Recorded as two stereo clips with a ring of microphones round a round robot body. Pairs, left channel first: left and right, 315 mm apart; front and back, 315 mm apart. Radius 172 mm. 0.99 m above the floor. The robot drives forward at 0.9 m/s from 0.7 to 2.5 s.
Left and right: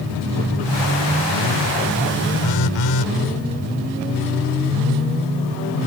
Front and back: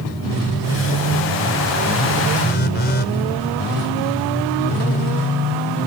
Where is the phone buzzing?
60° left; by 3.1 s 65° left.